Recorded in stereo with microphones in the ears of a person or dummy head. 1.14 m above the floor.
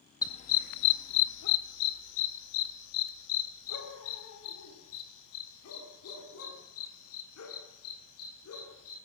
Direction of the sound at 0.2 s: 15° left (ahead or behind).